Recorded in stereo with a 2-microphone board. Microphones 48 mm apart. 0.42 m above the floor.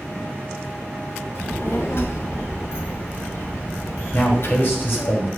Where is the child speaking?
60° left (ahead or behind), 2 m.